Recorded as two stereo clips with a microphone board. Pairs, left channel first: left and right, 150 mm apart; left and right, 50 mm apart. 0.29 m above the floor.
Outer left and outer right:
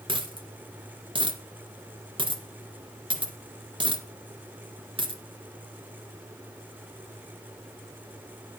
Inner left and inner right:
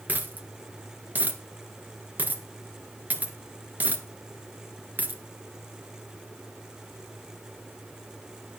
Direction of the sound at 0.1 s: 35° right (ahead or behind).